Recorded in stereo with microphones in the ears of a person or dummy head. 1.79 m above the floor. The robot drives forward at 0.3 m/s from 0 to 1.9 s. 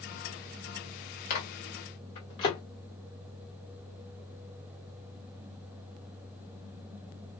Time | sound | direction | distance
1.3 | a microwave | 30° left (ahead or behind) | 0.5 m